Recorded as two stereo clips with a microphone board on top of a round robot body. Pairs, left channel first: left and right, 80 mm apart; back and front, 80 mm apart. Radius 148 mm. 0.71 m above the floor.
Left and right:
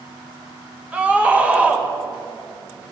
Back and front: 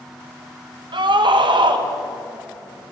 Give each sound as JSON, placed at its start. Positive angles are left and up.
{"t": 0.9, "sound": "a scream", "azimuth_deg": -15, "distance_m": 3.5}